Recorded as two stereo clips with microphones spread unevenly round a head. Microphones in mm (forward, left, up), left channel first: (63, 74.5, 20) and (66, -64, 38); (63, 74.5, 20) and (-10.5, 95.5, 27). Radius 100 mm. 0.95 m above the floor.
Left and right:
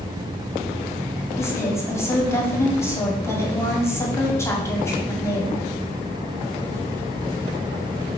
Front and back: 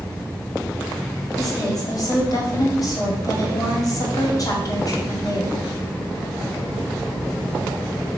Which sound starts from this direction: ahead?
A woman speaking, at 1.4 s.